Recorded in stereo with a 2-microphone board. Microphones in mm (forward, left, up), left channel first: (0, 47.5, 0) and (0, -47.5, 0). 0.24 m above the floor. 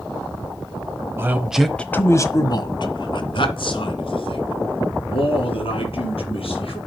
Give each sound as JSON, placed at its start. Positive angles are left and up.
{"t": 1.2, "sound": "a man speaking", "side_deg": -25, "distance_m": 1.1}